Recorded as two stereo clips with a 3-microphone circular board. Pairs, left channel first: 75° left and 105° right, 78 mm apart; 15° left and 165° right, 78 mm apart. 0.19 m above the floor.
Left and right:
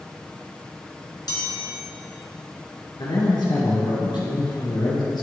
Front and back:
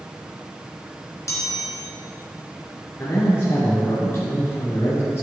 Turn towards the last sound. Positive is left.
turn(degrees=70)